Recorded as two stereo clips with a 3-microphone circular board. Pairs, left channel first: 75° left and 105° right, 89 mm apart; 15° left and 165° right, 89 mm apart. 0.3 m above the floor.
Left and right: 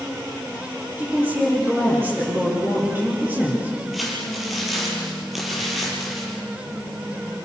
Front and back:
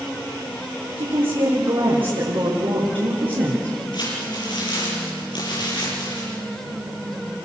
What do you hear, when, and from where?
1.0 s a woman speaking: 170° right, 8 m
3.9 s crumpling: 15° right, 8.5 m